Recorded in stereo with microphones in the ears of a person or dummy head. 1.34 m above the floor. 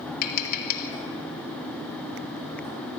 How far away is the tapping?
About 1.4 m.